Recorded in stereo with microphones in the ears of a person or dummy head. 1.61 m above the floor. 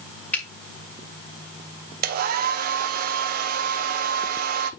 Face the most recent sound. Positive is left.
turn(degrees=-55)  # may be behind; listen again after turning